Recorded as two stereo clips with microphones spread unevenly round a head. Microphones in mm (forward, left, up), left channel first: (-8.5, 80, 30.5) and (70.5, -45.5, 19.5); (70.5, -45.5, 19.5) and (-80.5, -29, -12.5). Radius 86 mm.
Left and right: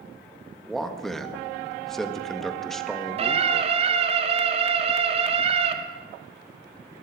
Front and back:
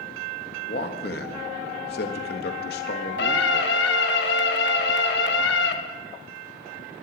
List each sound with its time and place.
0.7 s a man speaking: 35° left, 1.4 m
3.2 s a scream: 10° right, 1.8 m